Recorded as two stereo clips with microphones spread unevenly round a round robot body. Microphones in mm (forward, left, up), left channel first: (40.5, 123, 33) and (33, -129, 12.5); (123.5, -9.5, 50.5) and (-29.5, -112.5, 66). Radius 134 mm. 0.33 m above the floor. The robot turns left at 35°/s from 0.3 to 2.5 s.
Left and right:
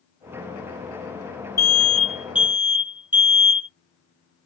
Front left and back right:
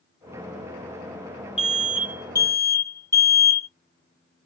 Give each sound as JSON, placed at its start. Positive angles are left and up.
{"t": 1.6, "sound": "an alarm", "azimuth_deg": 10, "distance_m": 1.2}